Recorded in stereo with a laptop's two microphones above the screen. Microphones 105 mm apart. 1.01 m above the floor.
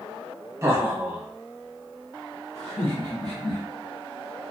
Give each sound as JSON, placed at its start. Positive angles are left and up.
{"t": 0.6, "sound": "laughter", "side_deg": -25, "distance_m": 0.9}